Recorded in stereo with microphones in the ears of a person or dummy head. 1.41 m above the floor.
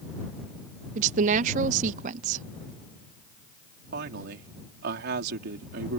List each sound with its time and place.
0.9 s a woman speaking: 45° right (ahead or behind)
3.9 s a woman speaking: 65° right (ahead or behind)